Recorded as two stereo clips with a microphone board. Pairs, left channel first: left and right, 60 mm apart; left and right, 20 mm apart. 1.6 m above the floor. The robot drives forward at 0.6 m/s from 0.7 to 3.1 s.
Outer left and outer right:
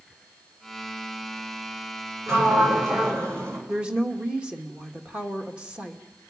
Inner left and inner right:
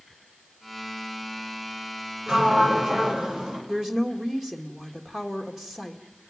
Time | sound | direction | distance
2.3 | a sliding door | 55° right (ahead or behind) | 7.5 m
3.7 | a woman speaking | 20° right (ahead or behind) | 2.5 m